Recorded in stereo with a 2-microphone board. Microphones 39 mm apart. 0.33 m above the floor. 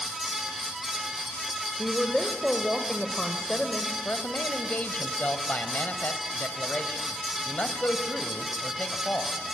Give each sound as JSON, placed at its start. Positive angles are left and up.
{"t": 1.8, "sound": "a woman speaking", "side_deg": 15, "distance_m": 1.3}
{"t": 4.0, "sound": "a man speaking", "side_deg": 45, "distance_m": 1.3}